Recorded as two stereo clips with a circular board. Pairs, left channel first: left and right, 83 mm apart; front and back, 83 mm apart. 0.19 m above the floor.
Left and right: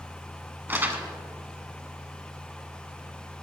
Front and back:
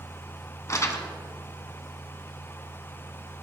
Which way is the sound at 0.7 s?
35° right.